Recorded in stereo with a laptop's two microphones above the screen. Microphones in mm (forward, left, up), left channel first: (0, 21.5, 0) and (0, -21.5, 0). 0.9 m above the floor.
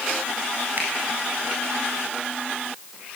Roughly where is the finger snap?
Right.